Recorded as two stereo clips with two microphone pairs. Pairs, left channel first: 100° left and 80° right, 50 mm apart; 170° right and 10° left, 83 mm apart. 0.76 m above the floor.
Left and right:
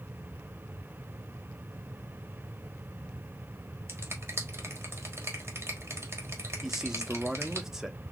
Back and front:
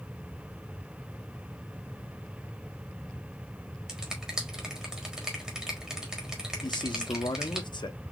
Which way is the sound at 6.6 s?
160° right.